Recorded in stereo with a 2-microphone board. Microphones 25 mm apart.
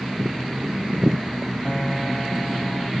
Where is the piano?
45° left (ahead or behind).